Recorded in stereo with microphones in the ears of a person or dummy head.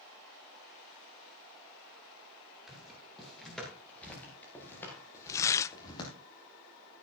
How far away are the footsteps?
About 8.5 m.